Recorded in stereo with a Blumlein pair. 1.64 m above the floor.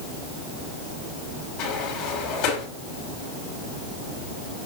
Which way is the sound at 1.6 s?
45° left.